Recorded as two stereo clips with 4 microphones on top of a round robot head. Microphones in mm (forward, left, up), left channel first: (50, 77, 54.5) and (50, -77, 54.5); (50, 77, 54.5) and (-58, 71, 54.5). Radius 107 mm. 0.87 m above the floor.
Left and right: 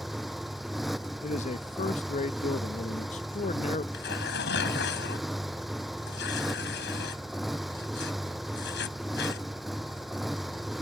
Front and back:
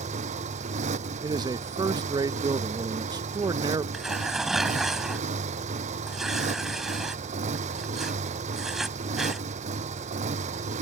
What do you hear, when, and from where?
0.0 s a motorcycle: straight behind
1.2 s a man speaking: 135° left
3.9 s tearing paper: 95° left